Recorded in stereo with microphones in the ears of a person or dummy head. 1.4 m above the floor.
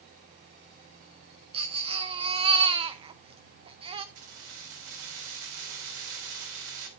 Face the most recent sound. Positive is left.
turn(degrees=-70)  # may be behind; listen again after turning